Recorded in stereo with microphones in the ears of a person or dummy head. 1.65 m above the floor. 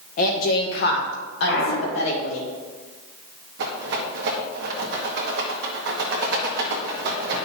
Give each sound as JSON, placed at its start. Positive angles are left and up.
{"t": 0.2, "sound": "a woman speaking", "side_deg": 45, "distance_m": 1.4}
{"t": 1.5, "sound": "a clunk", "side_deg": 60, "distance_m": 1.8}
{"t": 3.6, "sound": "a rattle", "side_deg": -65, "distance_m": 1.7}